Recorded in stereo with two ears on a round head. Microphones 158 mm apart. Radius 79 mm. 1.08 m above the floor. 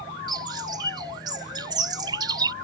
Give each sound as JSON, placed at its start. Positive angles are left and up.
{"t": 0.3, "sound": "a bird", "side_deg": -25}